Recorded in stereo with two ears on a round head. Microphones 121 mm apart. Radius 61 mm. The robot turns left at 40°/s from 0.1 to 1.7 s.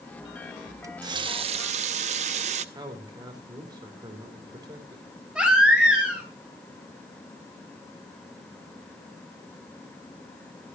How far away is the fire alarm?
I don't hear a fire alarm.